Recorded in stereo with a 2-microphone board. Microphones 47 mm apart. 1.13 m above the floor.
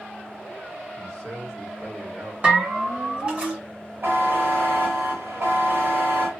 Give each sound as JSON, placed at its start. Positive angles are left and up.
{"t": 0.9, "sound": "a man speaking", "side_deg": -50, "distance_m": 1.9}
{"t": 2.4, "sound": "a bell", "side_deg": -25, "distance_m": 1.9}
{"t": 4.0, "sound": "a buzzer", "side_deg": -55, "distance_m": 1.2}